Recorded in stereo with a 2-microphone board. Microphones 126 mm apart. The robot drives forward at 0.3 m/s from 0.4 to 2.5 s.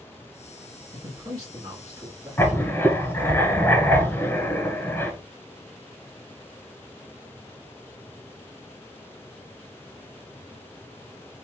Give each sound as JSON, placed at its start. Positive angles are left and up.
{"t": 0.9, "sound": "a man speaking", "side_deg": -30, "distance_m": 1.3}
{"t": 2.4, "sound": "writing", "side_deg": 20, "distance_m": 0.9}